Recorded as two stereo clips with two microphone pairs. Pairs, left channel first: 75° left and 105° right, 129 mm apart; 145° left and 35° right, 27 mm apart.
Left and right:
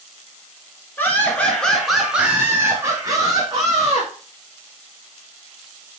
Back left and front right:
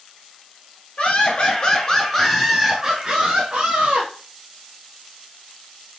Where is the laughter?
145° left, 1.6 m; by 4.1 s 60° right, 1.8 m.